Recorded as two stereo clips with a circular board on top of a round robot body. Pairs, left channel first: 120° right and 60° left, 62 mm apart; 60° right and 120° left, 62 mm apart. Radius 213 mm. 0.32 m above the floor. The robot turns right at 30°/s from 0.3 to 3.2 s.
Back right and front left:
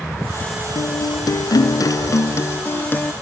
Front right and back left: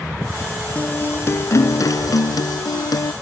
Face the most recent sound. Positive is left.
turn(degrees=-50)